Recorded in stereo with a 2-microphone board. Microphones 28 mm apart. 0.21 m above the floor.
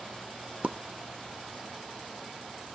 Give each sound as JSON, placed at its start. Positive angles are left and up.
{"t": 0.6, "sound": "a pop", "side_deg": -55, "distance_m": 0.6}